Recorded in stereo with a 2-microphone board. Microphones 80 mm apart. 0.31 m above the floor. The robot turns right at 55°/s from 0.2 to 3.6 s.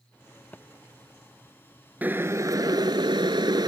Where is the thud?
25° left (ahead or behind); by 0.7 s 15° left (ahead or behind).